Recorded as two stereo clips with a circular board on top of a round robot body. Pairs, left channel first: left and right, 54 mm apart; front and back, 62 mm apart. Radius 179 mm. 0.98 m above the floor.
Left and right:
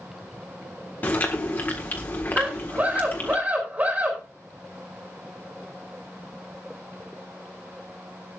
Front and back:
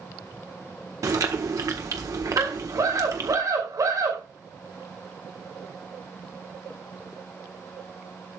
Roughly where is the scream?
Behind right.